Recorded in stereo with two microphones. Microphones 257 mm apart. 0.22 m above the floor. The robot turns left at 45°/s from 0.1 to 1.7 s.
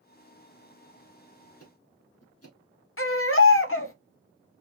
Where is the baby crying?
55° left (ahead or behind), 0.7 m.